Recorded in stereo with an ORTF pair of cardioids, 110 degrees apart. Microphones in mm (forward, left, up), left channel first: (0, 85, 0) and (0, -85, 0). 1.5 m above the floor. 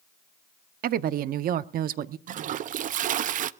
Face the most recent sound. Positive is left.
turn(degrees=-50)